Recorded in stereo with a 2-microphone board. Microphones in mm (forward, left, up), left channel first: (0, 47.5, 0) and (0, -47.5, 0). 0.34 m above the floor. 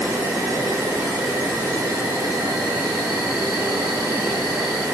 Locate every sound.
0.0 s an insect: 35° right (ahead or behind), 1.4 m